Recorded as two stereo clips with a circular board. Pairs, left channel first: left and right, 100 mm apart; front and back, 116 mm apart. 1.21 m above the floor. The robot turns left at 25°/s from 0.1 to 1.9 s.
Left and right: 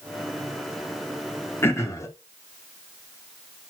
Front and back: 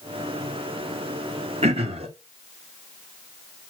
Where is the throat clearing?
155° left, 2.5 m; by 2.1 s 150° left, 2.5 m.